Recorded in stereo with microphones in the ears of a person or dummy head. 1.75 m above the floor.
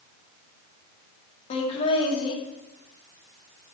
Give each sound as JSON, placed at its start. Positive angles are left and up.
{"t": 1.5, "sound": "laughter", "side_deg": 40, "distance_m": 2.0}